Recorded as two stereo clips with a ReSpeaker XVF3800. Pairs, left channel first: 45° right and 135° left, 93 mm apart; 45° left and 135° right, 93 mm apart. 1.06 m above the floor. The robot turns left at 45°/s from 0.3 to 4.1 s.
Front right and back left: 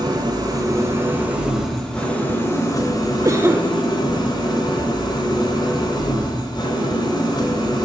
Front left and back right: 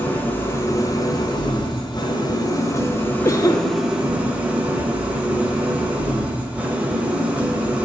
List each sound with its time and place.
0.0 s an engine running: 110° left, 1.2 m; by 7.9 s 60° right, 1.2 m
3.2 s a cough: 95° left, 0.5 m; by 3.7 s 70° left, 0.5 m
4.8 s knocking: 175° right, 0.7 m